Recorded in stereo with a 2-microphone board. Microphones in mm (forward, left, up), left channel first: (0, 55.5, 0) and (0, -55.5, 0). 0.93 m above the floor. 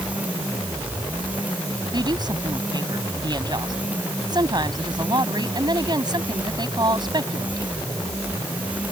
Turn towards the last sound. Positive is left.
turn(degrees=-40)  # may be behind; listen again after turning